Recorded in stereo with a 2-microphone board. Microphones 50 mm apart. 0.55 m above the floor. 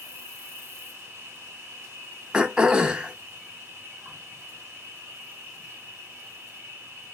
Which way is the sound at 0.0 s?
60° right (ahead or behind).